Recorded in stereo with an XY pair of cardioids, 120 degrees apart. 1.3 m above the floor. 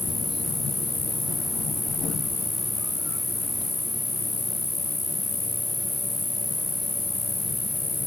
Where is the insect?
10° left.